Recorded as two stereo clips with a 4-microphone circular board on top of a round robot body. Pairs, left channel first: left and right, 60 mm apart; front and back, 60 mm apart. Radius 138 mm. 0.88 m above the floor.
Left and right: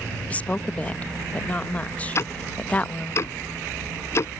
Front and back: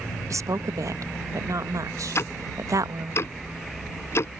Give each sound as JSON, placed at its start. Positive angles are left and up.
{"t": 0.3, "sound": "a woman speaking", "azimuth_deg": 155}
{"t": 2.1, "sound": "ticking", "azimuth_deg": 45}